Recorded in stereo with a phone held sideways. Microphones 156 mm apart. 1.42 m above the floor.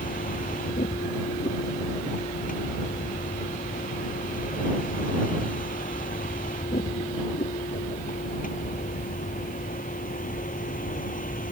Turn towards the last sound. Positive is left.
turn(degrees=60)  # may be behind; listen again after turning